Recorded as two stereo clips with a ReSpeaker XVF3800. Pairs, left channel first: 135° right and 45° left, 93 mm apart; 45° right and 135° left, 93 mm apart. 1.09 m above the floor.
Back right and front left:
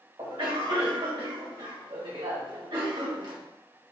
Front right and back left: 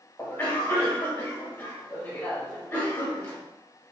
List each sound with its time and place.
0.2 s a cough: 20° left, 1.8 m